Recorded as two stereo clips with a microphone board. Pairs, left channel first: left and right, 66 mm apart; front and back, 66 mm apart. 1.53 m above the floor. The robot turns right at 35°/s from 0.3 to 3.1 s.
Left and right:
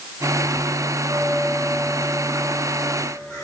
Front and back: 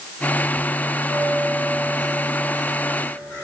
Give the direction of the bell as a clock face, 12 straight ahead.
12 o'clock.